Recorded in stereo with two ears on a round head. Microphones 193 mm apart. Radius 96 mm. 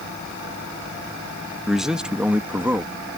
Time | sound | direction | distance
1.7 | a man speaking | centre (ahead or behind) | ?